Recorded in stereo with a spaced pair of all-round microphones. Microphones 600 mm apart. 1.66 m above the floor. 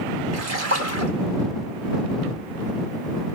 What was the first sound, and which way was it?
A splash, 75° right (ahead or behind).